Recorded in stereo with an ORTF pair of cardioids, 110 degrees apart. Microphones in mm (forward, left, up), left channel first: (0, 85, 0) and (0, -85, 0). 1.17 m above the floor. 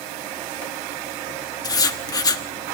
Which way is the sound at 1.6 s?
25° left.